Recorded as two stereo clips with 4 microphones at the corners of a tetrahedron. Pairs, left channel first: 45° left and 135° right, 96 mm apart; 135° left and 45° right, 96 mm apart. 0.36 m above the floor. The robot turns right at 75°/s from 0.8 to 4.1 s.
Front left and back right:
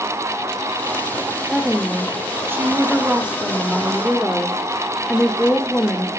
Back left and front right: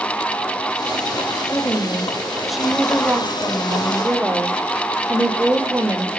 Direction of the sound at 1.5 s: 150° left.